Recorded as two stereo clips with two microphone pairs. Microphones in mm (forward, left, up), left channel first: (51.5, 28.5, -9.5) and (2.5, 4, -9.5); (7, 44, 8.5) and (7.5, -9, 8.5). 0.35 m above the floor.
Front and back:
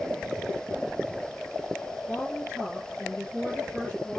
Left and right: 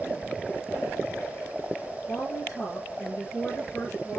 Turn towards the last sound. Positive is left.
turn(degrees=70)